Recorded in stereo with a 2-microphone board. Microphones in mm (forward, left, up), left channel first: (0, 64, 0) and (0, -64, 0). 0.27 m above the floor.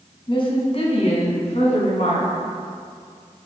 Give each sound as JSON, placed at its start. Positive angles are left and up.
{"t": 0.3, "sound": "a woman speaking", "side_deg": 40, "distance_m": 2.0}